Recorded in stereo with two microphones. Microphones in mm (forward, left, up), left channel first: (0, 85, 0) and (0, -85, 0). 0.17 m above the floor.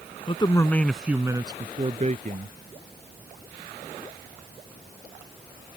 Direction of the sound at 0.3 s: 35° left (ahead or behind).